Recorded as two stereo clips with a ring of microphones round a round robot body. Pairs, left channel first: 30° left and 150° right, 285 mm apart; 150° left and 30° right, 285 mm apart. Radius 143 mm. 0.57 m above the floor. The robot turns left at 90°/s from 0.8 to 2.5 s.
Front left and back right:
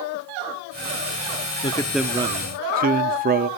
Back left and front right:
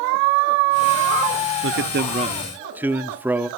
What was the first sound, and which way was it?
A man speaking, 30° right.